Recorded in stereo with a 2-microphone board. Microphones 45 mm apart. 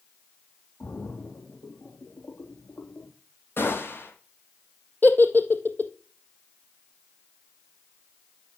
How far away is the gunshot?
About 5.5 m.